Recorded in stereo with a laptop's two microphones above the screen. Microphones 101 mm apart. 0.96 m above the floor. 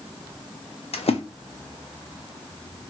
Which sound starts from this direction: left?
A splash, at 0.9 s.